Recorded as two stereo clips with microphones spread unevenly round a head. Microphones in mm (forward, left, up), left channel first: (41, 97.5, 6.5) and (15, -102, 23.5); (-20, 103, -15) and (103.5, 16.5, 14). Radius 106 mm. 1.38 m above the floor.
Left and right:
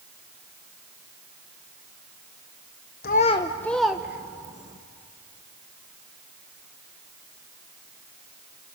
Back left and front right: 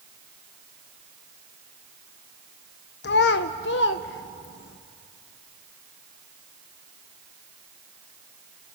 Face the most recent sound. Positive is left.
turn(degrees=-170)